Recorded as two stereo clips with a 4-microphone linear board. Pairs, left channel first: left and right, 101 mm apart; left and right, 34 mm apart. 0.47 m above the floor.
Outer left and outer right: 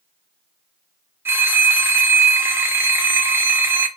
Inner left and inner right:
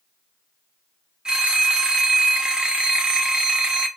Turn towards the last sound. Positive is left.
turn(degrees=-25)  # may be behind; listen again after turning